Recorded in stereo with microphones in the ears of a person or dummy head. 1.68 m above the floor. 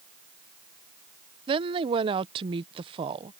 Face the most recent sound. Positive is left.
turn(degrees=-25)  # may be behind; listen again after turning